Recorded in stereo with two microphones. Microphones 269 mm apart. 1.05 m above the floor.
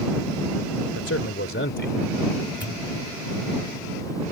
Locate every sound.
0.9 s a man speaking: 60° left (ahead or behind); by 2.0 s 40° left (ahead or behind)
2.6 s a pop: 45° left (ahead or behind)